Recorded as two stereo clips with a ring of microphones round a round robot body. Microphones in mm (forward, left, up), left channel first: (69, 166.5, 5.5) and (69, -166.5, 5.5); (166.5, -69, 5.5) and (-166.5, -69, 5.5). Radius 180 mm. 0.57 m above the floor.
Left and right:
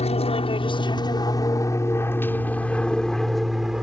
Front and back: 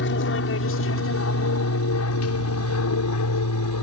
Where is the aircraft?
30° left; by 3.8 s 5° right.